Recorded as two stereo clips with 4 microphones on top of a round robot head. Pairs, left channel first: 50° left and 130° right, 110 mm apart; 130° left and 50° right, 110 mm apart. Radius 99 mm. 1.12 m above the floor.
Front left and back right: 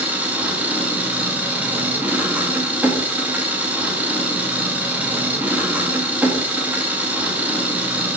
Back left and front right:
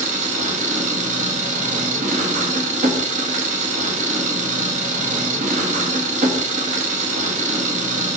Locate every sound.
0.0 s an engine running: 50° right, 1.4 m